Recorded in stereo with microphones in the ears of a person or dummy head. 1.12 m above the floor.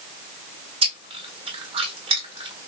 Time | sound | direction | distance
0.8 | chewing | 25° right (ahead or behind) | 1.9 m